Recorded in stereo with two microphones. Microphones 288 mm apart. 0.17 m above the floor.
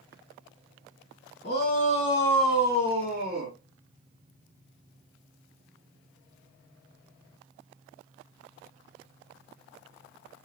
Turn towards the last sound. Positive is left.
turn(degrees=-40)  # may be behind; listen again after turning